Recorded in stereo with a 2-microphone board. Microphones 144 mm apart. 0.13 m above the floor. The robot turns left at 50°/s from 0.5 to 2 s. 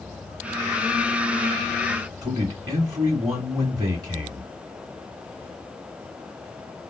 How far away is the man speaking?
About 2 m.